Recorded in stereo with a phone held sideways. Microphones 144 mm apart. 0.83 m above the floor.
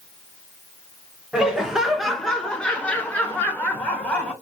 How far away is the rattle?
I don't hear a rattle.